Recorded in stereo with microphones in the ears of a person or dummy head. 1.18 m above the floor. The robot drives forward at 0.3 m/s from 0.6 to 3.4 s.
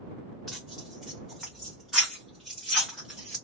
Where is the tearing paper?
5° left (ahead or behind), 1.1 m; by 3.4 s centre (ahead or behind), 1.7 m.